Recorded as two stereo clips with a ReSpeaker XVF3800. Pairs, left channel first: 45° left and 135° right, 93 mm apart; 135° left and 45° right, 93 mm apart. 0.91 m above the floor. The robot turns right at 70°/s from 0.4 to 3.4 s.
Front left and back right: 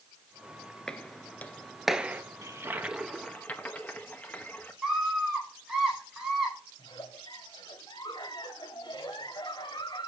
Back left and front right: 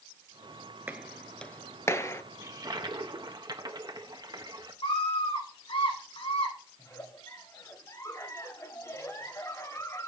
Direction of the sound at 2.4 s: 95° right.